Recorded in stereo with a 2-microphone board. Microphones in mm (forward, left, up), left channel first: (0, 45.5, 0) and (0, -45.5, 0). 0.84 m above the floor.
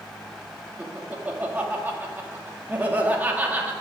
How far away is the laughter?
About 1.6 m.